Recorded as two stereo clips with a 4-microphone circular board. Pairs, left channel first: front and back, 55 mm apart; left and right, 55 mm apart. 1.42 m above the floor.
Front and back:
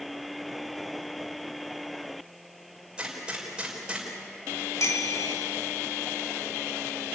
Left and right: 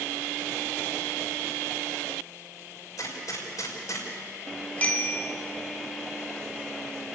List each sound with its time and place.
3.0 s a gunshot: 105° left, 5.5 m
4.8 s a bicycle bell: 25° left, 2.5 m